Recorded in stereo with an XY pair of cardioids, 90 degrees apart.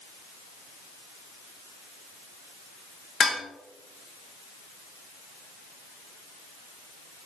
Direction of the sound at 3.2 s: 65° left.